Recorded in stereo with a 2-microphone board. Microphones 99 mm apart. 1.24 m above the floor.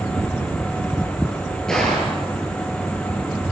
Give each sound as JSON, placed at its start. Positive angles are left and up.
{"t": 1.7, "sound": "a gunshot", "side_deg": 5, "distance_m": 8.0}